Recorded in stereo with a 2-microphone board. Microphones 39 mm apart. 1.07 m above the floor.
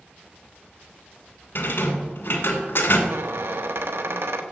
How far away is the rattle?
About 1.9 m.